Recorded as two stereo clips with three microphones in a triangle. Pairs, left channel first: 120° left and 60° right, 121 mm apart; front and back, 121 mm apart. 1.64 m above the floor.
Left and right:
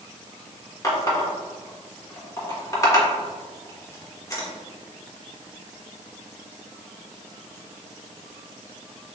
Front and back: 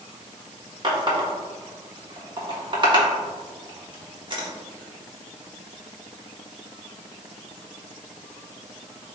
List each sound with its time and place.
0.8 s a running tap: 170° left, 1.1 m